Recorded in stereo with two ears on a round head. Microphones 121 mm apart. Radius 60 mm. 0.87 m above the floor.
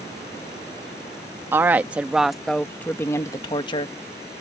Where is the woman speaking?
15° right (ahead or behind); by 3.9 s 40° left (ahead or behind).